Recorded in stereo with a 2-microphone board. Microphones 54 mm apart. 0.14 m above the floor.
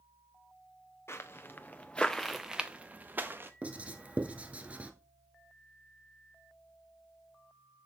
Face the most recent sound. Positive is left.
turn(degrees=-25)  # may be behind; listen again after turning